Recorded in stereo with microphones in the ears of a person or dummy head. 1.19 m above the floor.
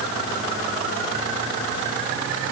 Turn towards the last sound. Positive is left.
No sound to turn to.